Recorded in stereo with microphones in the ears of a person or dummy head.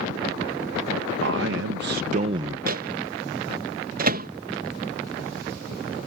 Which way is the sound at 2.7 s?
40° right (ahead or behind).